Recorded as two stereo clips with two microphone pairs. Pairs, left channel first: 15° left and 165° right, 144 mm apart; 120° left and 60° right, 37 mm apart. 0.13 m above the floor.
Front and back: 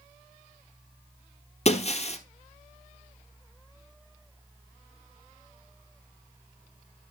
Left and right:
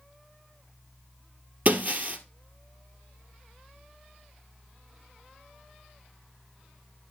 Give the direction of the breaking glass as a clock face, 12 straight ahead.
1 o'clock.